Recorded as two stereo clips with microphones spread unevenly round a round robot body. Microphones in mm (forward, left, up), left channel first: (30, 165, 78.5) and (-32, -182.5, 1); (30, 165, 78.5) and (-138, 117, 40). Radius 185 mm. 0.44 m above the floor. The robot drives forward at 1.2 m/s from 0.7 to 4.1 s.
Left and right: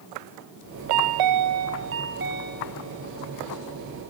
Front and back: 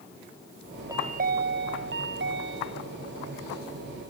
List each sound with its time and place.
0.9 s a chime: 85° right; by 3.1 s 170° right